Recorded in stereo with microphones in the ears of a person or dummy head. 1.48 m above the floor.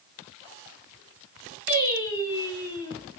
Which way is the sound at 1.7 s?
15° left (ahead or behind).